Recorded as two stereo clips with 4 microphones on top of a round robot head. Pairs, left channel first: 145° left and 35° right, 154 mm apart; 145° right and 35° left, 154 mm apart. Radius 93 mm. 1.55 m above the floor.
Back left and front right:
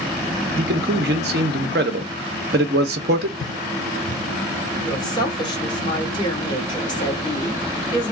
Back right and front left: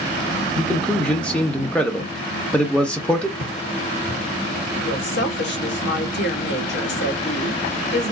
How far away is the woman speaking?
About 1.5 m.